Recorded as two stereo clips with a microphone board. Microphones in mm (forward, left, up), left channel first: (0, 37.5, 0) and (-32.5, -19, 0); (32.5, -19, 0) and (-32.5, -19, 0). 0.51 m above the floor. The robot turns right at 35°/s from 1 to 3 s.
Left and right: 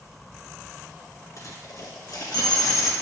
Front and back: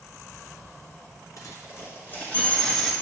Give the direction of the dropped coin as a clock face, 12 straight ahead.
11 o'clock.